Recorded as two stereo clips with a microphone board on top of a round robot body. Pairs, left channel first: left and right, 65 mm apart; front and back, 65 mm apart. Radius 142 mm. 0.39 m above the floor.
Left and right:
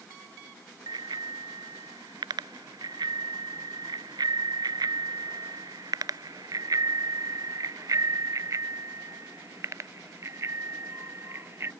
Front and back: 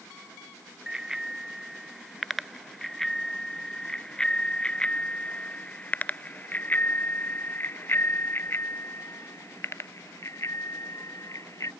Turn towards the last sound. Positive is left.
turn(degrees=-40)